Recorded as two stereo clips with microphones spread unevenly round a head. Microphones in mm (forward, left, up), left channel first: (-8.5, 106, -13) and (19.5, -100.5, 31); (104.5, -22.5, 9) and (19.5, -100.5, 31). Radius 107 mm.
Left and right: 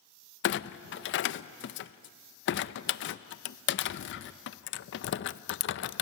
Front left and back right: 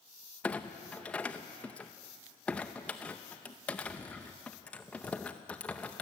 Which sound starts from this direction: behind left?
A clunk, at 0.4 s.